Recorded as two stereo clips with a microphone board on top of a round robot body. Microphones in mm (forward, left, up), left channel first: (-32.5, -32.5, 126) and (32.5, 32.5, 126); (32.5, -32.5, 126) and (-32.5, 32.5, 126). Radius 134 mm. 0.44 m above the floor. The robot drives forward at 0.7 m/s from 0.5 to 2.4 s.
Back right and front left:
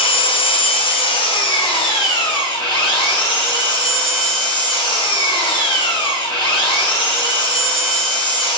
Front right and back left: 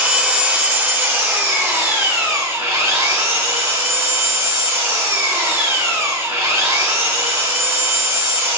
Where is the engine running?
150° right, 1.3 m; by 8.6 s 165° right, 2.5 m.